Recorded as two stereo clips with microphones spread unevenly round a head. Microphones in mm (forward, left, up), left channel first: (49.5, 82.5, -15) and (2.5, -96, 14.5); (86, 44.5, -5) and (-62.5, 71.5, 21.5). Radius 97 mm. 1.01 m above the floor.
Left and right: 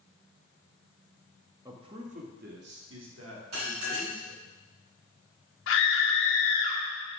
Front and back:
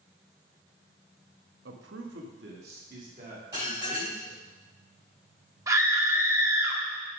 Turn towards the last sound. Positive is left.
turn(degrees=100)